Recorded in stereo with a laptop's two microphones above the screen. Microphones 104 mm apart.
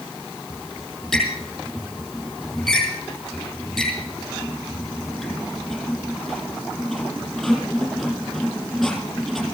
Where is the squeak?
Centre (ahead or behind), 5.5 m.